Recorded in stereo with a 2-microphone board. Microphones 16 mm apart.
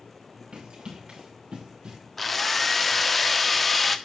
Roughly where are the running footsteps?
Right.